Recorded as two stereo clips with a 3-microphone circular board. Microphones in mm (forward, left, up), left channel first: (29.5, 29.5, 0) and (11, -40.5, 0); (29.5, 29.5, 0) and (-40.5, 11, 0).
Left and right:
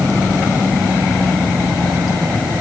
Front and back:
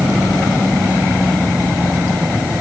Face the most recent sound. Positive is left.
No sound to turn to.